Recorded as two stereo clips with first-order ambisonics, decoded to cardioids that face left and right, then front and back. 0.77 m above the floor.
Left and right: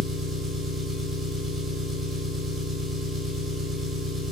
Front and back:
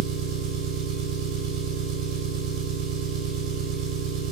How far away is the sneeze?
I don't hear a sneeze.